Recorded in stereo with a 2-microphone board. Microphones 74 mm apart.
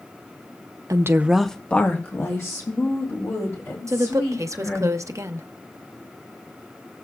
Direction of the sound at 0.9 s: 50° right (ahead or behind).